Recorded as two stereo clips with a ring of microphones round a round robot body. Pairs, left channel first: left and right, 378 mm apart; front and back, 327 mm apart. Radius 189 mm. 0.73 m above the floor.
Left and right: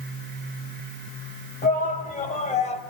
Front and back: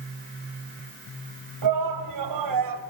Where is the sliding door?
I don't hear a sliding door.